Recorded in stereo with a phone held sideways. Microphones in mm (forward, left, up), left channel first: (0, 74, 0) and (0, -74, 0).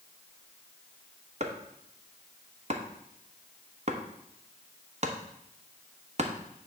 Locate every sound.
1.4 s chopping: 50° right (ahead or behind), 1.1 m